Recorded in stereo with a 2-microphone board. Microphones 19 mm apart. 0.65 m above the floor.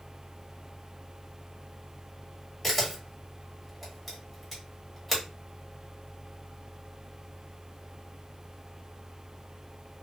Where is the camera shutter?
10° left (ahead or behind), 1.6 m.